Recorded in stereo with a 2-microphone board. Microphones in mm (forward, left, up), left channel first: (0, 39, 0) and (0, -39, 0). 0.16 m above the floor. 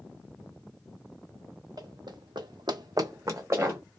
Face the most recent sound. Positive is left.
turn(degrees=-30)  # may be behind; listen again after turning